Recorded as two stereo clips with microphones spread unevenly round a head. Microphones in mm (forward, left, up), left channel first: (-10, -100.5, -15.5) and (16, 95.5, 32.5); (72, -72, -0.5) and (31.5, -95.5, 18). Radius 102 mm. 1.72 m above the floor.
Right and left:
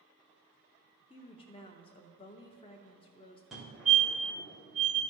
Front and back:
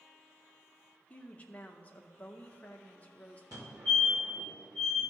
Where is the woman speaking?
40° right, 0.6 m.